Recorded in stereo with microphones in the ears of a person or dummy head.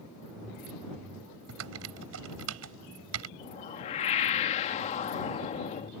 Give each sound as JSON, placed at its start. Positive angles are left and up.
{"t": 1.5, "sound": "typing on a keyboard", "side_deg": -85}
{"t": 3.4, "sound": "a whoosh", "side_deg": 35}